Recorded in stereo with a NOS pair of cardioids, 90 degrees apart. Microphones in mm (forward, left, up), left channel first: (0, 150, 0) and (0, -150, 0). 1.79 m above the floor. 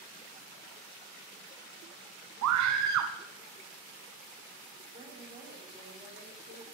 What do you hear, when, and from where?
2.4 s a scream: 65° right, 0.9 m
4.9 s a woman speaking: 15° right, 7 m